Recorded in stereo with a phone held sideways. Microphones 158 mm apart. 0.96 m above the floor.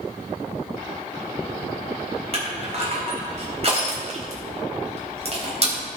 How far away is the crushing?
About 3 m.